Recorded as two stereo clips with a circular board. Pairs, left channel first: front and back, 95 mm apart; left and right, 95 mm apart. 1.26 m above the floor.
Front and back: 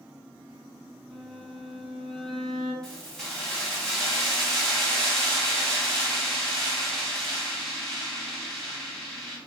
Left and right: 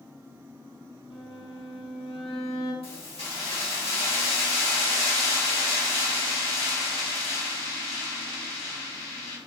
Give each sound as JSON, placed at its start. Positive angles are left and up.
{"t": 1.1, "sound": "a violin", "azimuth_deg": 85, "distance_m": 1.3}
{"t": 2.8, "sound": "keys jangling", "azimuth_deg": 85, "distance_m": 1.8}